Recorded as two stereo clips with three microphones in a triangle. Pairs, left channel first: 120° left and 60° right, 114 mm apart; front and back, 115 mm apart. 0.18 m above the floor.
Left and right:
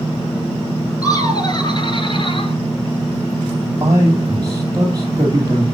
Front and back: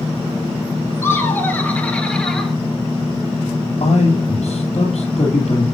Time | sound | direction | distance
1.0 | laughter | 65° left | 2.5 m
3.8 | a man speaking | straight ahead | 3 m